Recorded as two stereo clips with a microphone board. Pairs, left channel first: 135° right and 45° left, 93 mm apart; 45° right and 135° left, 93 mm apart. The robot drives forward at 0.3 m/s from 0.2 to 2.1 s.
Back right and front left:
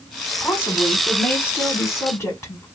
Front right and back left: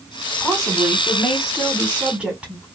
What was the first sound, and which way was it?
A woman speaking, 130° right.